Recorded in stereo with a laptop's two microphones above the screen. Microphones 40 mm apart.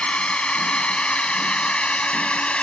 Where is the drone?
30° left (ahead or behind).